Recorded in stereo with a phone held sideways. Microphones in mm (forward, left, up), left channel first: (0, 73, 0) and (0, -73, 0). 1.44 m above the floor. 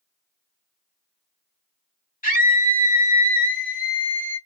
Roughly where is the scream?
Left.